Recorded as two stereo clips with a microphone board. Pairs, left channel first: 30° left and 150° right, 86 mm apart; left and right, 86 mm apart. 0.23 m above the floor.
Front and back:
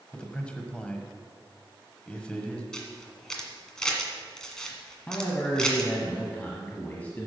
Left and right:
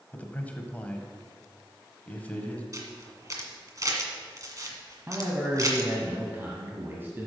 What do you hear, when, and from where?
0.1 s a man speaking: 80° left, 1.2 m
2.7 s a camera shutter: 50° right, 1.7 m
5.1 s a man speaking: 35° right, 1.4 m